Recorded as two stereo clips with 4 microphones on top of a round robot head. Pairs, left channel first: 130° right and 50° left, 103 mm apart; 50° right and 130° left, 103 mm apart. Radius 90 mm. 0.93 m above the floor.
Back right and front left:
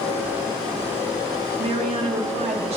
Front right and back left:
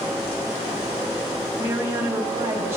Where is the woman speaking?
65° left, 1.4 m.